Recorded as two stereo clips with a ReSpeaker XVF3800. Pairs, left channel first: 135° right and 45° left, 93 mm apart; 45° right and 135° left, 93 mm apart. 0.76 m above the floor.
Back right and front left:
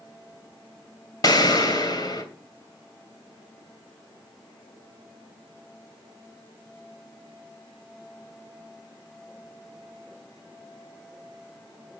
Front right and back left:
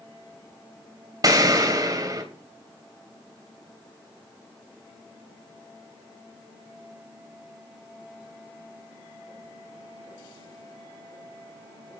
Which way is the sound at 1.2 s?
Straight behind.